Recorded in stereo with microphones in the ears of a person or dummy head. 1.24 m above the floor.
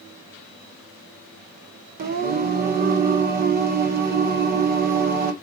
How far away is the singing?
About 1.2 m.